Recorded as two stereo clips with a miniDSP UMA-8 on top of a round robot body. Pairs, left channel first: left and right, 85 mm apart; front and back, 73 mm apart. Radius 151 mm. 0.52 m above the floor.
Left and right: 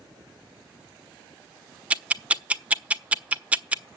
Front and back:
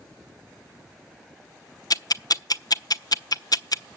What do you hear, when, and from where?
1.9 s ticking: 15° right, 0.8 m